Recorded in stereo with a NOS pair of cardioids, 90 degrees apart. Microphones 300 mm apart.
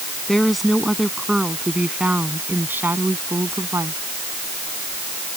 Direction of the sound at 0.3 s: Straight ahead.